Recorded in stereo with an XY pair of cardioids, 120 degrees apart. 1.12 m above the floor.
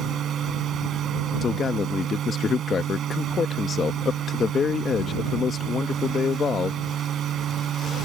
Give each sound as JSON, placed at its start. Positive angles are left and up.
{"t": 0.0, "sound": "a machine running", "azimuth_deg": -50}
{"t": 1.4, "sound": "a man speaking", "azimuth_deg": 40}